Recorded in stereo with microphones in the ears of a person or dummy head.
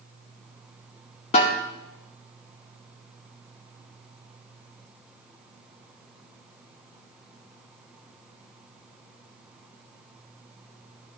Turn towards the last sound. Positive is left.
turn(degrees=30)  # may be behind; listen again after turning